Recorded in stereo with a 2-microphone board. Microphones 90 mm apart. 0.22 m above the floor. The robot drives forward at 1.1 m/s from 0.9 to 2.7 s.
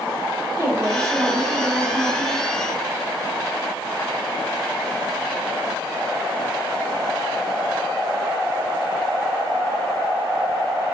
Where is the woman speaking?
40° right (ahead or behind), 2 m; by 2.5 s 25° right (ahead or behind), 3.5 m.